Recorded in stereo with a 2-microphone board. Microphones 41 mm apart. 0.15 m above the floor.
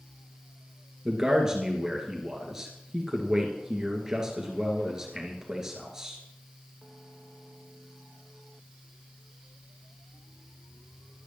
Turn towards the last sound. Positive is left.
turn(degrees=-15)  # may be behind; listen again after turning